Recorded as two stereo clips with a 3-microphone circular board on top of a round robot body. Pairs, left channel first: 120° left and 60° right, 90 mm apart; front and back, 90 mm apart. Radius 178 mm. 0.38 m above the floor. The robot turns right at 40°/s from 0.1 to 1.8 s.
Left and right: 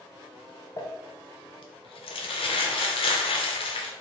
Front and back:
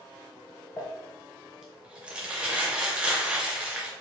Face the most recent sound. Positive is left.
turn(degrees=100)